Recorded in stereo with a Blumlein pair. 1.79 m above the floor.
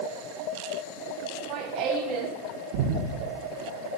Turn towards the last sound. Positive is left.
turn(degrees=-50)